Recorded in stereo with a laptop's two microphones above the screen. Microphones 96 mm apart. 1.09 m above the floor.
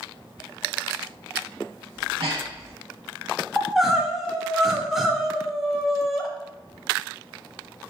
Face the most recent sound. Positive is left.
turn(degrees=-5)  # may be behind; listen again after turning